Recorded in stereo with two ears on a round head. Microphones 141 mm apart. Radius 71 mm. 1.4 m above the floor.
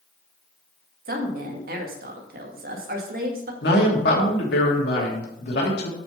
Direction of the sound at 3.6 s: 75° left (ahead or behind).